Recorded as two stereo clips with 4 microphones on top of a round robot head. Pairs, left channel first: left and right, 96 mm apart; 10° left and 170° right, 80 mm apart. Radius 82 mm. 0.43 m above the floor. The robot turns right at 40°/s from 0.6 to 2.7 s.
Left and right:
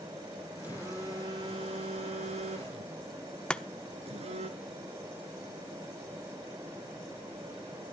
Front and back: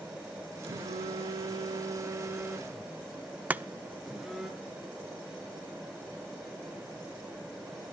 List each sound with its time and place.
0.6 s a phone buzzing: 170° right, 1.8 m; by 4.5 s 85° right, 1.8 m
3.5 s chopping: 155° left, 0.8 m